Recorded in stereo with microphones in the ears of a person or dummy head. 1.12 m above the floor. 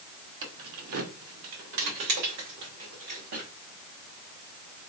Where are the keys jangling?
65° right (ahead or behind), 1.9 m.